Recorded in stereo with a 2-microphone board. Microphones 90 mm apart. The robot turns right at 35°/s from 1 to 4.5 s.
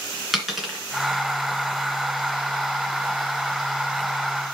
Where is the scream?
I don't hear a scream.